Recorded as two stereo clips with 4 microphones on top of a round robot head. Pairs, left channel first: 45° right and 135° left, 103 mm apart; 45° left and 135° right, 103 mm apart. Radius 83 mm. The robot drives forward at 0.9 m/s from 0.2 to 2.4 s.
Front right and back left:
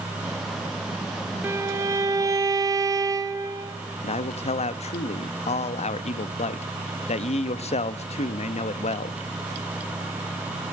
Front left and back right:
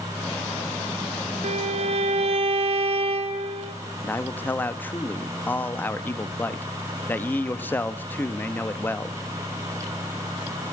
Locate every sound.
1.4 s a violin: 155° right, 1.1 m; by 3.8 s 165° right, 1.9 m
4.0 s a man speaking: 30° right, 1.0 m